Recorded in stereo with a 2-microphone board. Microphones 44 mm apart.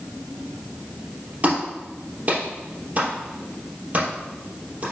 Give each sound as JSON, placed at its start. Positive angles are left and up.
{"t": 1.4, "sound": "a clap", "side_deg": -35, "distance_m": 3.0}